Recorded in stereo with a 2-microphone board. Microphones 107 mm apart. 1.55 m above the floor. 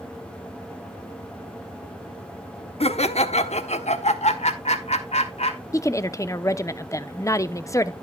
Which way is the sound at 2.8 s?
60° left (ahead or behind).